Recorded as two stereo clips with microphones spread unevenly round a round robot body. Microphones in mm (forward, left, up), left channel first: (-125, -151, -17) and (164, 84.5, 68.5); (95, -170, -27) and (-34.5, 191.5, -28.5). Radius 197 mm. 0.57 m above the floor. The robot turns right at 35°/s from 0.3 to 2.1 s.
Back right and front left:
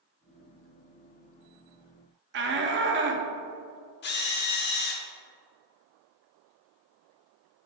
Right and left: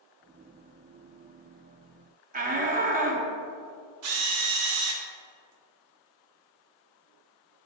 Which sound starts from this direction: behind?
A drill, at 4.0 s.